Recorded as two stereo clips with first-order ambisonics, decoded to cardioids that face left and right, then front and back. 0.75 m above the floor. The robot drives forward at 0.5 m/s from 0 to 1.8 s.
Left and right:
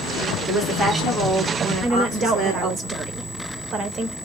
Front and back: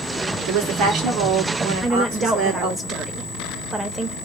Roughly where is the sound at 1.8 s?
Behind right.